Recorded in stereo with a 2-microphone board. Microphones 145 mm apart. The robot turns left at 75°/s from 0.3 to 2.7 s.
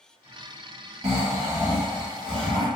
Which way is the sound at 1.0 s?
125° right.